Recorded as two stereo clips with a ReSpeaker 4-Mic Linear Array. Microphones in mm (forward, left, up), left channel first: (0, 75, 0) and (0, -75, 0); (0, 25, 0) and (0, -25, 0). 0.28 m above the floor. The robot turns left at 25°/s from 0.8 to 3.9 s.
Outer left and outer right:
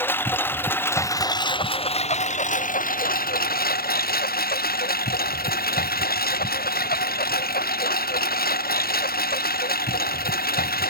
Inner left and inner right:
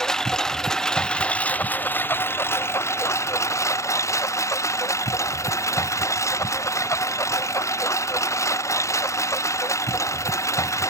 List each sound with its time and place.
0.0 s a lawn mower: 165° left; by 10.9 s 90° left